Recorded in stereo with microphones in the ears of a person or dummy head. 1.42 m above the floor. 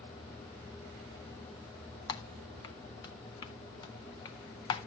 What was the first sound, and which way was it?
Typing on a keyboard, 25° left (ahead or behind).